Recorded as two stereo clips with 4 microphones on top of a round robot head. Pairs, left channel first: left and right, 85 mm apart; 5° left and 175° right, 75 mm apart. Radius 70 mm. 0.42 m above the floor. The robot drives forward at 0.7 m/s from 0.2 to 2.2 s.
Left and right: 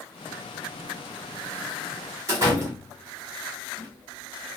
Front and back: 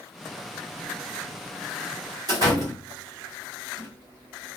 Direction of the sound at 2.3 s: 145° right.